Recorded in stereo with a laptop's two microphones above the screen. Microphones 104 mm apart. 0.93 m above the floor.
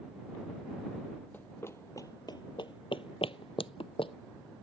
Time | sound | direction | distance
1.3 | running footsteps | 20° left (ahead or behind) | ?